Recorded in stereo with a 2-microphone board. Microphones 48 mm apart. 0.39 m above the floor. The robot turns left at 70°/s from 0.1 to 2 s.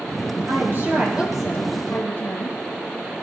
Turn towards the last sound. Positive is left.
turn(degrees=145)